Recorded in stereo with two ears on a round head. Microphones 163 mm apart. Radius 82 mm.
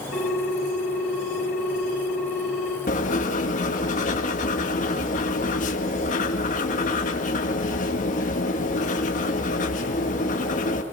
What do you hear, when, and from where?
0.1 s a ringtone: 60° left (ahead or behind), 4 m
2.9 s writing: 40° left (ahead or behind), 2 m